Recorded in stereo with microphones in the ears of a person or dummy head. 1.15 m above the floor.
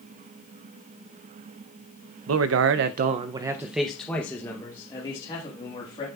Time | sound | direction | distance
2.3 | a man speaking | 85° right | 0.7 m